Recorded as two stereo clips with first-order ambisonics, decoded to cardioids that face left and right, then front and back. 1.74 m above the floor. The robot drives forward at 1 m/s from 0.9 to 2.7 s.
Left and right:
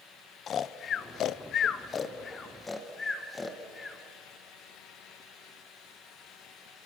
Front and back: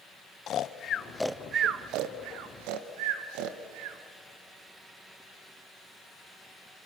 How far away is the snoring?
About 0.7 m.